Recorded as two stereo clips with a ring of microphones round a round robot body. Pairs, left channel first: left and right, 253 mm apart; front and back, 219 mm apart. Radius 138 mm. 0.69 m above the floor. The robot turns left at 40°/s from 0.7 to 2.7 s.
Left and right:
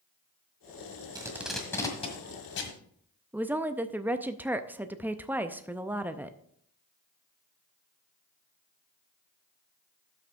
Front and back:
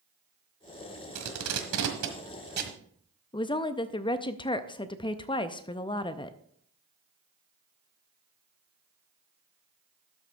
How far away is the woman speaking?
About 0.5 m.